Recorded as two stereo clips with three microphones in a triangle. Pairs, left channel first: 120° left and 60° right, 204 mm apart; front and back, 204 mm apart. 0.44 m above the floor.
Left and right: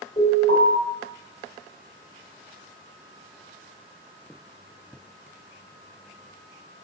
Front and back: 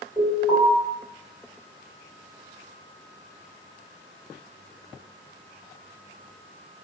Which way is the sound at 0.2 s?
125° left.